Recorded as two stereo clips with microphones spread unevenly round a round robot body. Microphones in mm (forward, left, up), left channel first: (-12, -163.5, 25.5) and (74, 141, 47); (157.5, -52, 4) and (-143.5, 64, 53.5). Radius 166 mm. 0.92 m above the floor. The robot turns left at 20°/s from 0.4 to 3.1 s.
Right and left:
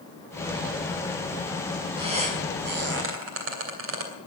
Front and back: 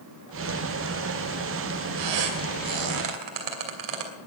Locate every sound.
2.0 s a squeak: 150° left, 2.5 m; by 4.1 s 125° left, 2.5 m